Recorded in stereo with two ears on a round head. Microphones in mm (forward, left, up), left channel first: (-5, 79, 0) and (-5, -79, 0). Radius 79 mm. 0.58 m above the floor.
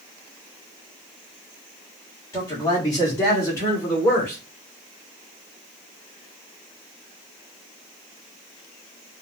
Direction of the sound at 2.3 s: 20° left (ahead or behind).